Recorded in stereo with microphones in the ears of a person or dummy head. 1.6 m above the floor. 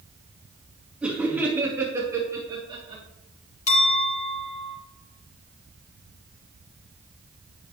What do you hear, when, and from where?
1.0 s laughter: 10° right (ahead or behind), 2.5 m; by 3.0 s 30° right (ahead or behind), 3.5 m
3.7 s a clink: 40° left (ahead or behind), 3 m